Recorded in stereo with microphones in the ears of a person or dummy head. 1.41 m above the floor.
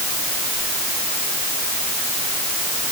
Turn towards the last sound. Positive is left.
No sound to turn to.